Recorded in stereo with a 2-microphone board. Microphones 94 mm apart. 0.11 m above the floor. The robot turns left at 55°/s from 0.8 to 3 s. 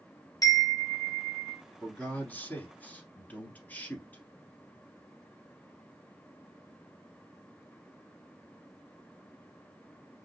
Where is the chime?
140° left, 1.0 m; by 1.6 s 95° left, 1.0 m.